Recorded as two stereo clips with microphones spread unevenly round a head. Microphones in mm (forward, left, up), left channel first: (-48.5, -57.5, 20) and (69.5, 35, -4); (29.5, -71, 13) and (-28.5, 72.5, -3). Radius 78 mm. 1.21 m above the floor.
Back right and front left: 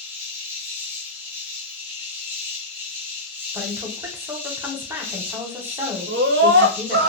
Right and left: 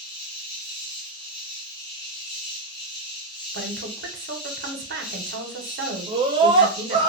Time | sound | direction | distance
0.0 | an insect | 40° right | 0.9 m
3.5 | a woman speaking | 110° left | 0.7 m
6.1 | a scream | 50° left | 0.5 m